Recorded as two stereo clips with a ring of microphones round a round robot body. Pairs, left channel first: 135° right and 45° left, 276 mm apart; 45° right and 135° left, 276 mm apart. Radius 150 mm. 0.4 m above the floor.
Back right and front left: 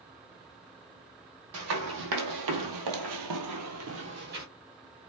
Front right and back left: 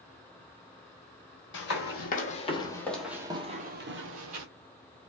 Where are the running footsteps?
5° left, 1.2 m; by 4.5 s 105° left, 0.9 m.